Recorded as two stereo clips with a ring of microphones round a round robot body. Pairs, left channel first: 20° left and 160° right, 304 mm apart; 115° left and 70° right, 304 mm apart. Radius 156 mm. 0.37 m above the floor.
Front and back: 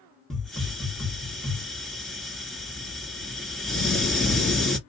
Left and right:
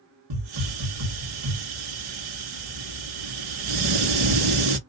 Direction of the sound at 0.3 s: 65° right.